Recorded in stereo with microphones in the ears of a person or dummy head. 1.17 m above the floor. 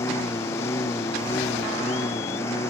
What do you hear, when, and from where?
0.0 s a lawn mower: 15° left (ahead or behind)